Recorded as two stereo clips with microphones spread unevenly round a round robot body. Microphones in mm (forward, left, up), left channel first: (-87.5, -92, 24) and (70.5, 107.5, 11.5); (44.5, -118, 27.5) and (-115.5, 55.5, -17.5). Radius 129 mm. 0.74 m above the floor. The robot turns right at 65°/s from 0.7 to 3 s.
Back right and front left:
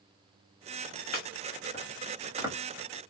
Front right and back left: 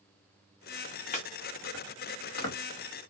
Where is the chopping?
110° right, 1.3 m; by 2.5 s 20° right, 1.3 m.